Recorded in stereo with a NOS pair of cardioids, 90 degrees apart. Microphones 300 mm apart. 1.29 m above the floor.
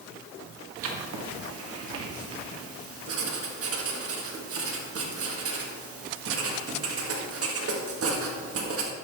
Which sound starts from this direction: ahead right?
Writing, at 0.8 s.